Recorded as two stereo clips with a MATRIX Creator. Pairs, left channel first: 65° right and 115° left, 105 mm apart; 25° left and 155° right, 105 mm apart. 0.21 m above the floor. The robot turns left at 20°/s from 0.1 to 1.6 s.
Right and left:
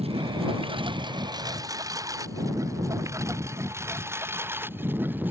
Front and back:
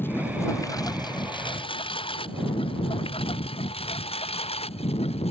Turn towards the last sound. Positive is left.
turn(degrees=40)